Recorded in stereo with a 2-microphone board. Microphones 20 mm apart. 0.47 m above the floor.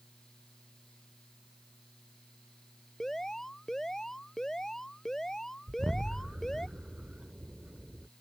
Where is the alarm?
25° left (ahead or behind).